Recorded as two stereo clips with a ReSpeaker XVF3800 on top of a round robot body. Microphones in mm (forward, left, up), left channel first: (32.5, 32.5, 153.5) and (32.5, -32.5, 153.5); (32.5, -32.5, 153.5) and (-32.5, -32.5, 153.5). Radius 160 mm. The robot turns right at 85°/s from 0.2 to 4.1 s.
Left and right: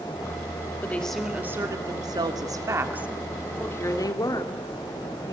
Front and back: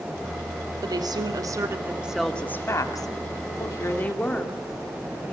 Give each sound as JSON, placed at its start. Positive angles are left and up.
{"t": 0.8, "sound": "a woman speaking", "azimuth_deg": 150, "distance_m": 2.5}